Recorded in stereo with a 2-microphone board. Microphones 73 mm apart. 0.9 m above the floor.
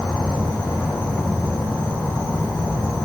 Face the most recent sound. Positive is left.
turn(degrees=90)